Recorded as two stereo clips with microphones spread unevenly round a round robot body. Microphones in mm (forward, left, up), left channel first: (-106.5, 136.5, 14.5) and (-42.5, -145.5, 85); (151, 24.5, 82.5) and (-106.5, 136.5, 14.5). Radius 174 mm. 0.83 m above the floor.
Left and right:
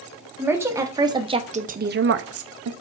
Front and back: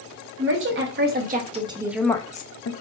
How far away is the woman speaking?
About 1.5 m.